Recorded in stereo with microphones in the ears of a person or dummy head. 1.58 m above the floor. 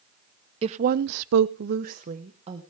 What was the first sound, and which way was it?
A woman speaking, 35° right (ahead or behind).